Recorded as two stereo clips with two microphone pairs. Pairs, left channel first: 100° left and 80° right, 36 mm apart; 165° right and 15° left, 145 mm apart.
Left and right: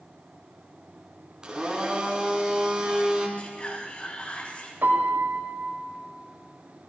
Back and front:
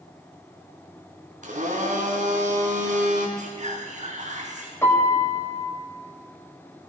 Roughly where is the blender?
Ahead.